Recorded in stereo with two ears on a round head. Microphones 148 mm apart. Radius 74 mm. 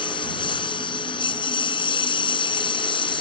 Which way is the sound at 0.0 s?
30° left (ahead or behind).